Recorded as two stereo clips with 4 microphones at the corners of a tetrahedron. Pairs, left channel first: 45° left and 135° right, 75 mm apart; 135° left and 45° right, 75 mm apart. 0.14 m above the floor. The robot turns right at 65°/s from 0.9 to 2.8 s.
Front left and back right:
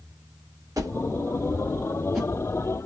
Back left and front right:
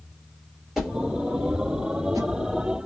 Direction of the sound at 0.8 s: 125° right.